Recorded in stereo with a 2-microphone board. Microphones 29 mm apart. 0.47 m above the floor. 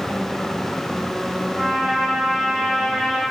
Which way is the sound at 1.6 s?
10° right (ahead or behind).